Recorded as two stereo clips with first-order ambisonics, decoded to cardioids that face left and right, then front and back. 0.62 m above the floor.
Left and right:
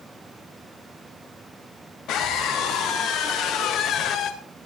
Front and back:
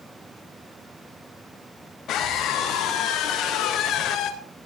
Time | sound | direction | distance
2.1 | a scream | 50° left | 4 m